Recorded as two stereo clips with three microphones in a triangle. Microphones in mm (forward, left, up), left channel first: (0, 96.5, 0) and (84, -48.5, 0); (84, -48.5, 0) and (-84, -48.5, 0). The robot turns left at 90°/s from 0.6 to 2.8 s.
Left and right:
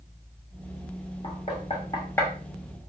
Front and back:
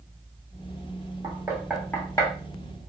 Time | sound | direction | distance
1.2 | knocking | 140° left | 1.0 m